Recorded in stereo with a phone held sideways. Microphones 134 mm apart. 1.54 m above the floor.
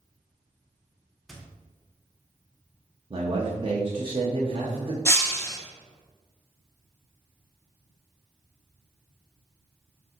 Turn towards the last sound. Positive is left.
turn(degrees=20)  # may be behind; listen again after turning